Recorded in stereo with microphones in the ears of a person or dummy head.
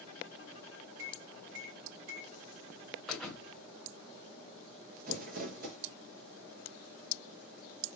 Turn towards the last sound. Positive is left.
turn(degrees=-45)  # may be behind; listen again after turning